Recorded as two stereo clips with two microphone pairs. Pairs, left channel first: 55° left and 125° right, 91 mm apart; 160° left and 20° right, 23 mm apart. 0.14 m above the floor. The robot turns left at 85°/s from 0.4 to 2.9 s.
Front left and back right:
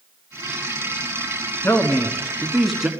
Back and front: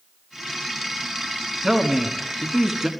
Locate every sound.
1.6 s a man speaking: 55° left, 1.2 m; by 2.9 s 50° right, 1.2 m